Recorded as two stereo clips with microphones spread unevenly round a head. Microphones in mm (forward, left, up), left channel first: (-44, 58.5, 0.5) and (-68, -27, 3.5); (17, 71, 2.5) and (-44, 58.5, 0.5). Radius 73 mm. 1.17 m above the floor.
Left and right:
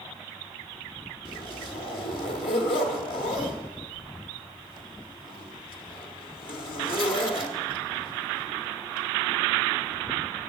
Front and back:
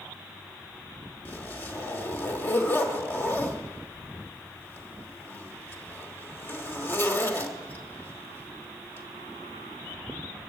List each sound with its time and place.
1.2 s a zipper: 55° left, 1.4 m